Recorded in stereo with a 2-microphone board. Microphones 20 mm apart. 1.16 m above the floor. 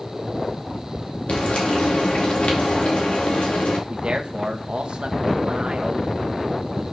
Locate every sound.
1.3 s frying: 70° left (ahead or behind), 2.5 m
3.9 s a man speaking: 65° right (ahead or behind), 1.0 m